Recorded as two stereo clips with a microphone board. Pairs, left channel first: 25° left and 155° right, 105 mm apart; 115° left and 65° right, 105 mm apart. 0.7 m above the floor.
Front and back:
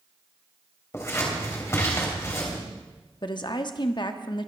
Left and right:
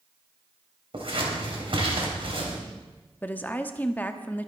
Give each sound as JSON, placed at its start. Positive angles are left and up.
{"t": 0.9, "sound": "scissors", "azimuth_deg": -40, "distance_m": 3.5}
{"t": 3.2, "sound": "a woman speaking", "azimuth_deg": 40, "distance_m": 1.0}